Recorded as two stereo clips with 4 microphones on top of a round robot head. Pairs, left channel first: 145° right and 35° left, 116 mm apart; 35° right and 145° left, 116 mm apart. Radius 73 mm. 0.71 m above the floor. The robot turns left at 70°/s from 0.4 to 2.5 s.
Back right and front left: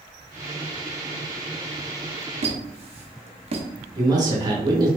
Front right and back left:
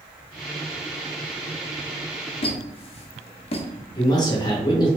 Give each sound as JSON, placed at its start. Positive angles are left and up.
{"t": 2.4, "sound": "a squeak", "azimuth_deg": 5, "distance_m": 0.6}
{"t": 4.0, "sound": "a man speaking", "azimuth_deg": 0, "distance_m": 1.0}